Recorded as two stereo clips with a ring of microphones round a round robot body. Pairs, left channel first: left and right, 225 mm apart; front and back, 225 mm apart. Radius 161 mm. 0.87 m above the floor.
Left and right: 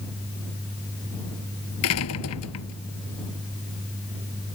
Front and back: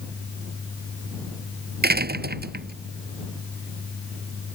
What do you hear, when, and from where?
1.8 s a door slam: 135° left